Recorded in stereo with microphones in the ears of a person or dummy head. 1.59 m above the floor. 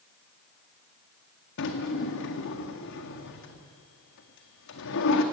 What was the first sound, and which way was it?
A drawer, 65° left (ahead or behind).